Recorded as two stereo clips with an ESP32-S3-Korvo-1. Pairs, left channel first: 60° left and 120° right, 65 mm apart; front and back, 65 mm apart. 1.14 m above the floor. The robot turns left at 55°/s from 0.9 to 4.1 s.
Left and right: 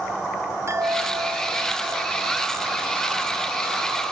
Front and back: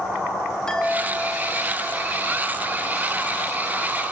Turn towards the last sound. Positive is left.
turn(degrees=110)